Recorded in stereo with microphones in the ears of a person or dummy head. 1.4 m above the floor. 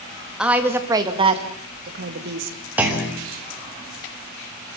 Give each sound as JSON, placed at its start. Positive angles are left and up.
{"t": 0.4, "sound": "a woman speaking", "side_deg": -5, "distance_m": 2.5}
{"t": 2.8, "sound": "a clunk", "side_deg": -10, "distance_m": 3.0}